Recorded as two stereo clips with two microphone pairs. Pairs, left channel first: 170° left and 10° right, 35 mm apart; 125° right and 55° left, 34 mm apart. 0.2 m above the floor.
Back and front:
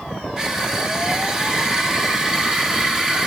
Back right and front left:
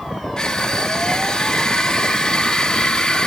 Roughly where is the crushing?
Right.